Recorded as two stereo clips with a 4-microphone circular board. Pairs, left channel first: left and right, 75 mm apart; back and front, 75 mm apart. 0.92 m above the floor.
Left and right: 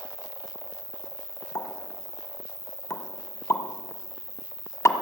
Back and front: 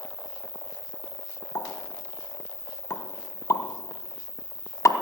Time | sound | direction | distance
0.0 | an insect | 135° right | 2.5 m
1.6 | a pop | 135° left | 1.4 m